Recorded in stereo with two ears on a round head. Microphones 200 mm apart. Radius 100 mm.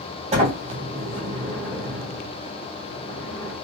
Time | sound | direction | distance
0.3 | a sliding door | 25° right (ahead or behind) | 1.2 m